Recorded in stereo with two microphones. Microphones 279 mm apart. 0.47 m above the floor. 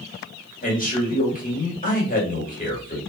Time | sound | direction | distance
0.6 | a man speaking | 30° left (ahead or behind) | 1.5 m